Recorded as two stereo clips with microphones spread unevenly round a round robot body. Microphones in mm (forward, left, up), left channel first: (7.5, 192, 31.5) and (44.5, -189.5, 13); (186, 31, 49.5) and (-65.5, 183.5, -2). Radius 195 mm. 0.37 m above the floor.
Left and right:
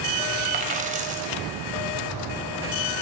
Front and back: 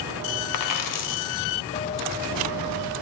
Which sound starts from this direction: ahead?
A dropped coin, at 0.5 s.